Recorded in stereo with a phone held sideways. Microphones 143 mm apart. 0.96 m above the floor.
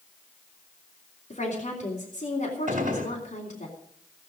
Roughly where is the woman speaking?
Left.